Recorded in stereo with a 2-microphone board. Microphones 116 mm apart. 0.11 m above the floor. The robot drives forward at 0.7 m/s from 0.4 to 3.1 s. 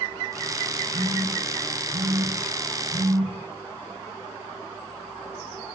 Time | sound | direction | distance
0.9 | a phone buzzing | 75° right (ahead or behind) | 9.5 m